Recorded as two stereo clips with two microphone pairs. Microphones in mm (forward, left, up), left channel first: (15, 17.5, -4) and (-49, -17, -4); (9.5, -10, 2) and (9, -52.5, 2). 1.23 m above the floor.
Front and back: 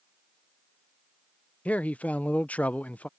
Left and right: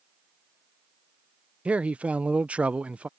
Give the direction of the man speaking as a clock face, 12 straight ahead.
1 o'clock.